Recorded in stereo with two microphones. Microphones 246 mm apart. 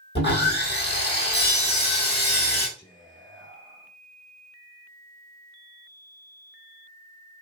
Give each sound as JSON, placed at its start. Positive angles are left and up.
{"t": 0.1, "sound": "sawing", "side_deg": 45, "distance_m": 1.4}
{"t": 2.8, "sound": "whispering", "side_deg": 15, "distance_m": 1.5}